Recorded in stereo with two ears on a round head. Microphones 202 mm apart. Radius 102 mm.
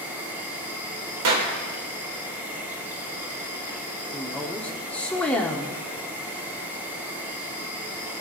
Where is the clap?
80° right, 2.5 m.